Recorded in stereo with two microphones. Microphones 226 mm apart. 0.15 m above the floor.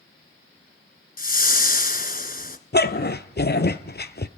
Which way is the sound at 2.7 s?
50° left (ahead or behind).